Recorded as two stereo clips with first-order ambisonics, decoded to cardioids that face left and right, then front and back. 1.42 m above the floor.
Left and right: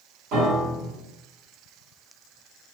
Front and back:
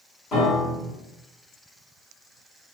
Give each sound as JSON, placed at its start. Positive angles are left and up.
{"t": 0.3, "sound": "a piano", "azimuth_deg": -65, "distance_m": 1.7}